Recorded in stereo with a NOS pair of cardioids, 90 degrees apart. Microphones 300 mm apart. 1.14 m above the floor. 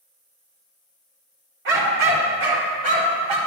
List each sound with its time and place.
1.6 s a dog barking: 45° right, 1.9 m; by 3.4 s 70° right, 2.0 m